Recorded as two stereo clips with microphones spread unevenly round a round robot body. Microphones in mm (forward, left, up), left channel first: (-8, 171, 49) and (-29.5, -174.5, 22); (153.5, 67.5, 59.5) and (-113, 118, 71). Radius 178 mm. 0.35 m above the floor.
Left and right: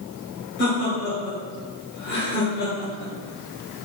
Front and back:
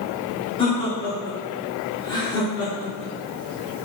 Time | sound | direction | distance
0.6 | laughter | 45° left | 1.3 m